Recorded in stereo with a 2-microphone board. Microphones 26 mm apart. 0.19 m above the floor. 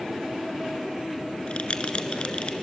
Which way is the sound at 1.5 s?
45° left (ahead or behind).